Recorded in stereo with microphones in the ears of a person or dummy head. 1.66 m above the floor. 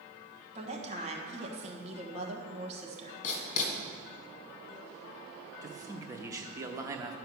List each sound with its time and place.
0.6 s a woman speaking: 40° right (ahead or behind), 1.5 m
3.2 s writing: 45° left (ahead or behind), 1.8 m
5.6 s a man speaking: 20° right (ahead or behind), 0.7 m